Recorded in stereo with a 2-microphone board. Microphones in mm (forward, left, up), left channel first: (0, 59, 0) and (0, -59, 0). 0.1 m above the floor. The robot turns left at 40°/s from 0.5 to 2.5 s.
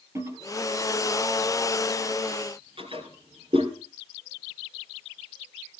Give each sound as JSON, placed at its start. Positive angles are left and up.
{"t": 0.1, "sound": "a toilet flushing", "side_deg": -25, "distance_m": 2.5}